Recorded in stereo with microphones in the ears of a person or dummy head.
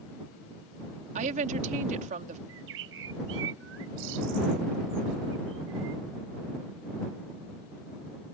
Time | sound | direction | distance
1.1 | a woman speaking | 50° right (ahead or behind) | ?
2.5 | a bird | 85° right | ?